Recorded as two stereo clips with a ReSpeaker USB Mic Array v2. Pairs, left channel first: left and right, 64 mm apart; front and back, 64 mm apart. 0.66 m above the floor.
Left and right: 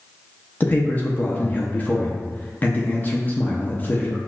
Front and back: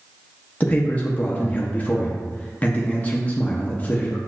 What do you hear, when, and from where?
0.6 s a man speaking: 50° left, 0.5 m